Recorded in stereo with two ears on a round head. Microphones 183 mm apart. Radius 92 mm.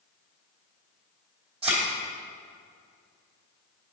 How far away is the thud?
About 3 m.